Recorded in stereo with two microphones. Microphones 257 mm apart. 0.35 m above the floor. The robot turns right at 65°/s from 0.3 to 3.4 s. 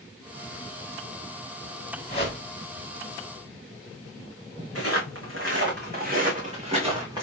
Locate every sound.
2.1 s a whoosh: 30° left (ahead or behind), 1.4 m; by 2.4 s 15° left (ahead or behind), 1.4 m
4.8 s footsteps: 65° right (ahead or behind), 1.7 m; by 7.2 s 15° right (ahead or behind), 2.0 m